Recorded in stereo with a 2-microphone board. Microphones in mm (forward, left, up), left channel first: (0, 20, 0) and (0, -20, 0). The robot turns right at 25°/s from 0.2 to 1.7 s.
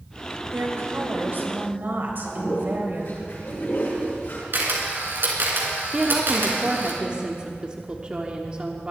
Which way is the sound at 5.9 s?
25° right (ahead or behind).